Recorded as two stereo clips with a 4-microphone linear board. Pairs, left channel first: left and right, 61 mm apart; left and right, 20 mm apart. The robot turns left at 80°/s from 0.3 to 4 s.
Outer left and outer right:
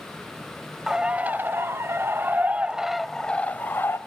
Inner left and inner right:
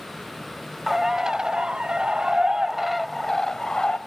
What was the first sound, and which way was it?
A bird, 10° right.